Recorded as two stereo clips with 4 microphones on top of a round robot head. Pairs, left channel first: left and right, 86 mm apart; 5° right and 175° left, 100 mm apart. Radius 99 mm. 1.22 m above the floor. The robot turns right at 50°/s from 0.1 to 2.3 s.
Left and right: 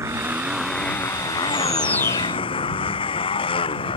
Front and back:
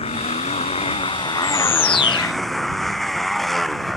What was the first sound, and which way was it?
A motorcycle, 30° right.